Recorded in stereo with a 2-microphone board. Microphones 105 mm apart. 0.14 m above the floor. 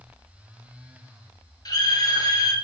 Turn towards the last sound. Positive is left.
turn(degrees=40)  # may be behind; listen again after turning